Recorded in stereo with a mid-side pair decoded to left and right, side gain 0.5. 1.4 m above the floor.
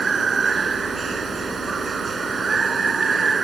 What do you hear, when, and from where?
0.0 s running water: 30° right